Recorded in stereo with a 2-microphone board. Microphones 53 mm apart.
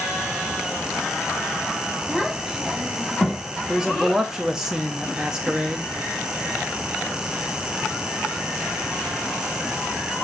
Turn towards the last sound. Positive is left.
turn(degrees=-10)  # may be behind; listen again after turning